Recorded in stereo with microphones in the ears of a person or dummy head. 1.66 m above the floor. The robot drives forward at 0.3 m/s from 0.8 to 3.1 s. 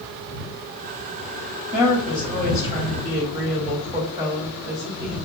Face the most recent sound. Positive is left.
turn(degrees=-15)  # may be behind; listen again after turning